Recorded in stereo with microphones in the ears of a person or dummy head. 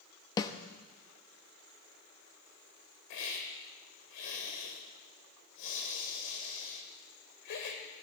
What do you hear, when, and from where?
0.4 s a snare drum: 20° left (ahead or behind), 0.9 m
3.1 s a hiss: 65° left (ahead or behind), 2.5 m